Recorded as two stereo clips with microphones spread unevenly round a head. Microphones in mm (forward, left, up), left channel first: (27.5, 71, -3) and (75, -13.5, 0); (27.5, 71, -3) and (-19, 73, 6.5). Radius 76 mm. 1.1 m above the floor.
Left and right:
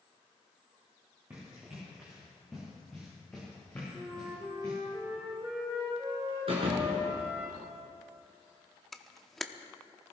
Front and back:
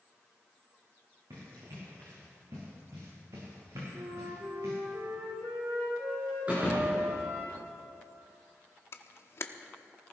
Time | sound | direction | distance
1.3 | running footsteps | 140° right | 6 m
3.9 | a flute | 140° right | 2 m
6.5 | a thud | 110° right | 3.5 m
8.9 | a camera shutter | 30° left | 0.9 m